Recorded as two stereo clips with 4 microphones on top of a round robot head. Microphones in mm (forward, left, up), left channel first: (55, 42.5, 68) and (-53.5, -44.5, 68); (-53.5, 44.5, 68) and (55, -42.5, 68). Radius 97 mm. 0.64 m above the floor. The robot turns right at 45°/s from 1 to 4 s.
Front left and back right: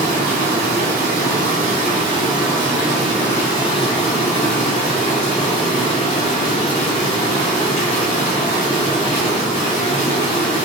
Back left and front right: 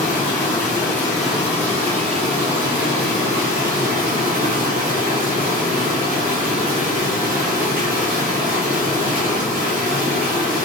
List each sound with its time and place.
0.0 s running water: 140° right, 1.2 m; by 10.7 s 5° right, 1.2 m